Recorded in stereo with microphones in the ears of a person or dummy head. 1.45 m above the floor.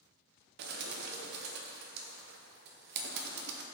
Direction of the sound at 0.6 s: 60° right (ahead or behind).